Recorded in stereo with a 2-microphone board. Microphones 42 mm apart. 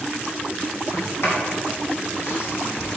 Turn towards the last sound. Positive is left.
turn(degrees=70)  # may be behind; listen again after turning